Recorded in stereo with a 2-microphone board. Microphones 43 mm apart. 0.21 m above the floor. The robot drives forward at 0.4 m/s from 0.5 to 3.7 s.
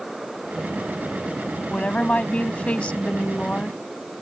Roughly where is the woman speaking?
Left.